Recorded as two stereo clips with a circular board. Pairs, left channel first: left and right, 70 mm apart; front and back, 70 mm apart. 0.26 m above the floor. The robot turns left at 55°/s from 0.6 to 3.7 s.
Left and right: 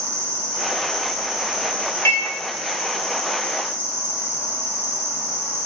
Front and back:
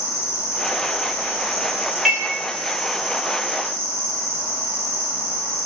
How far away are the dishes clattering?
About 0.8 m.